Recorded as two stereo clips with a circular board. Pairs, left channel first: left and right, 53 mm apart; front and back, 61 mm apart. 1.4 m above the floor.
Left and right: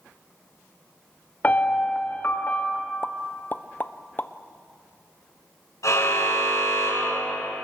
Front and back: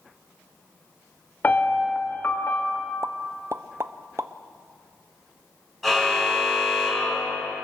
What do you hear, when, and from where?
1.4 s a piano: 45° left, 1.4 m
3.0 s a pop: 140° left, 0.6 m
5.8 s a car horn: 90° left, 6.5 m